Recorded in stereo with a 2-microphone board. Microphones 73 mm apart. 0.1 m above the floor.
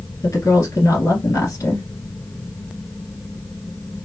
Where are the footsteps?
No footsteps in this recording.